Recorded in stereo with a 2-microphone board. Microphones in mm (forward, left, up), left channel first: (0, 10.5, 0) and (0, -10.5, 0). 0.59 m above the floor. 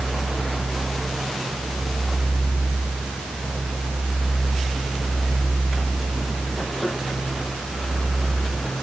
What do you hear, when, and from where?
Only background noise.